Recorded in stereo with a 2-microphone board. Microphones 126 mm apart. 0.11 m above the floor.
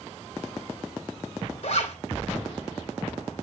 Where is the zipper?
60° left (ahead or behind), 2.5 m.